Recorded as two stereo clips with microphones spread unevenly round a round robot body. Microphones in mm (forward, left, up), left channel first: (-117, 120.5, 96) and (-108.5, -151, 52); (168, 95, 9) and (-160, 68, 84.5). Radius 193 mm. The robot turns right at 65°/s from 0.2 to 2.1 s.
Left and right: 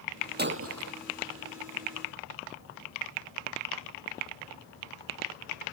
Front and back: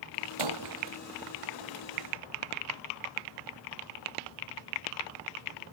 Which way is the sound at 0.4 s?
145° right.